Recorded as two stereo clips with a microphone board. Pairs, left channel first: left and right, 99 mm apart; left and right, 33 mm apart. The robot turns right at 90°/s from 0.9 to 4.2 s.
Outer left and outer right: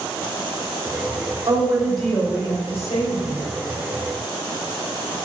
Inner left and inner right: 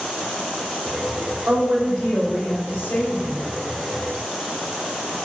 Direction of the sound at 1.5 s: 45° right.